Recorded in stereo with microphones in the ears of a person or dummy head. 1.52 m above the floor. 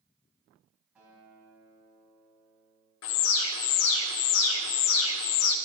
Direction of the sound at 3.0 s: 75° left (ahead or behind).